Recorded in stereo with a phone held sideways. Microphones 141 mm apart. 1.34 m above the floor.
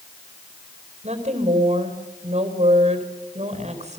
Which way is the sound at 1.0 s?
55° right (ahead or behind).